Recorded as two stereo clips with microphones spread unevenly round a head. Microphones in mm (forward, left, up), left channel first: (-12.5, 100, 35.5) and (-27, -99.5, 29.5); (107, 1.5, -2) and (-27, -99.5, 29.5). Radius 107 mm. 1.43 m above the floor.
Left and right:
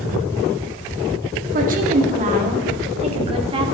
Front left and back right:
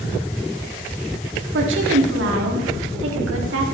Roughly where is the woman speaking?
Behind right.